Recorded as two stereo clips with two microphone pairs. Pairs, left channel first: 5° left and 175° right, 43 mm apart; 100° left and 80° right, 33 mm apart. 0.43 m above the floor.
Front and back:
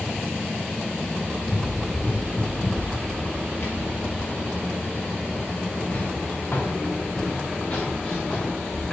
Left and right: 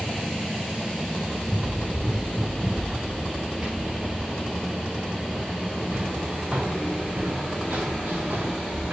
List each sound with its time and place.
1.4 s running footsteps: 5° left, 5 m; by 8.9 s 65° right, 2.5 m